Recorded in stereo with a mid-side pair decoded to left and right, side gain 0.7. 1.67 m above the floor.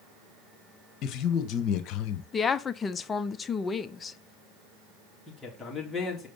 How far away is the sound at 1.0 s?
About 1.6 m.